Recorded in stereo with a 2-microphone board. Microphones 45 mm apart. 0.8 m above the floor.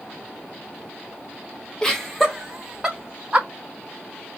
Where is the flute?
No flute in this recording.